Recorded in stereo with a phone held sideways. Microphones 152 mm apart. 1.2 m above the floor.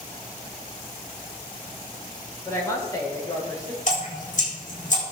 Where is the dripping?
55° left (ahead or behind), 7.5 m.